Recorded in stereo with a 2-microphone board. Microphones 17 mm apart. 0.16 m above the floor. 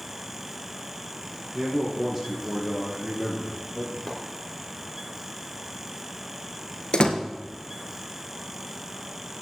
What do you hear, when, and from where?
1.5 s a man speaking: 15° right (ahead or behind), 4.5 m
4.1 s a splash: 5° left (ahead or behind), 3 m
6.9 s a door slam: 60° left (ahead or behind), 1.6 m